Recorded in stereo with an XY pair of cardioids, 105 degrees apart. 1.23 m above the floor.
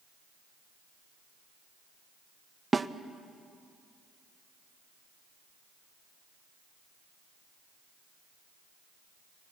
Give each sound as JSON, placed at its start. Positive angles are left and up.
{"t": 2.7, "sound": "a snare drum", "azimuth_deg": -25, "distance_m": 0.7}